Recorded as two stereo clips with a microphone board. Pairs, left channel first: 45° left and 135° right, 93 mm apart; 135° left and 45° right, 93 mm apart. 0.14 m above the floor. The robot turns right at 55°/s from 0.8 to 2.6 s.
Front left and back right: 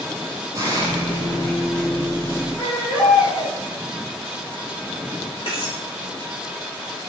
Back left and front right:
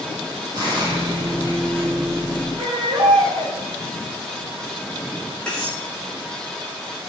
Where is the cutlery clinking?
55° left, 5.5 m.